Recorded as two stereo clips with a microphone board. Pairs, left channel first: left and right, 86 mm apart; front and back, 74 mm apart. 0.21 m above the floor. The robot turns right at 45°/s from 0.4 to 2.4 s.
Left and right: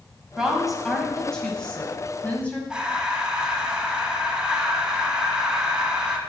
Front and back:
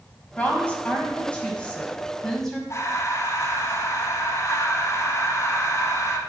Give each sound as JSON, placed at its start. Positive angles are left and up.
{"t": 0.4, "sound": "a woman speaking", "azimuth_deg": -20, "distance_m": 1.0}
{"t": 2.7, "sound": "breathing", "azimuth_deg": -15, "distance_m": 0.7}